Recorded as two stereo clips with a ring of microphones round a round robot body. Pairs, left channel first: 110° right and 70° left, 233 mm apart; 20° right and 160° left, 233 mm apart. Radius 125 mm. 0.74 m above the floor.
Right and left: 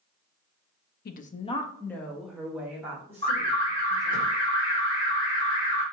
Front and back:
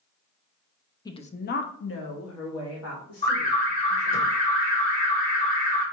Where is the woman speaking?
90° right, 0.6 m; by 4.2 s 10° right, 2.5 m.